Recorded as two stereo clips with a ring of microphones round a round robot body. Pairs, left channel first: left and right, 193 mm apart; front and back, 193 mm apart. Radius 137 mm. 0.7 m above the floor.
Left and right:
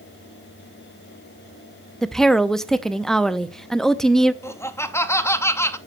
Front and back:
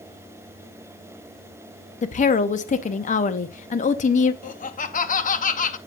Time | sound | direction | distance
2.0 | a woman speaking | 5° left | 0.5 m
4.4 | laughter | 20° left | 0.8 m